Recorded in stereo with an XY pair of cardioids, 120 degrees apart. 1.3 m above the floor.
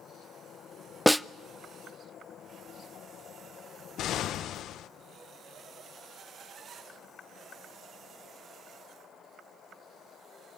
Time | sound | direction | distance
1.1 | a snare drum | straight ahead | 0.5 m
4.0 | an explosion | 60° left | 0.9 m